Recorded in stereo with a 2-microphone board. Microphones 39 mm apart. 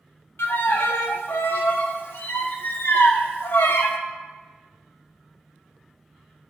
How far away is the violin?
About 0.6 m.